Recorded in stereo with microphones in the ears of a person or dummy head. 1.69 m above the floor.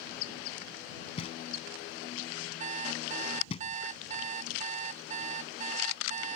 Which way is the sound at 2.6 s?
40° right (ahead or behind).